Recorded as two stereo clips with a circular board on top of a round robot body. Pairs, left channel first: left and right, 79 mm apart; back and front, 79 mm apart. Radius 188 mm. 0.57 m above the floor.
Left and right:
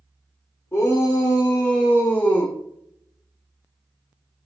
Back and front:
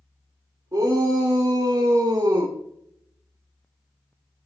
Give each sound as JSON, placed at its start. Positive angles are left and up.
{"t": 0.7, "sound": "a shout", "azimuth_deg": 40, "distance_m": 2.5}